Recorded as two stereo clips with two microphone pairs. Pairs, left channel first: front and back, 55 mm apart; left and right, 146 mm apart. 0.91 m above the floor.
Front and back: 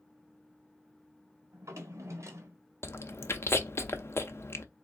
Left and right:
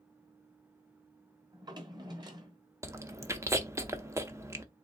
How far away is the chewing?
About 0.6 m.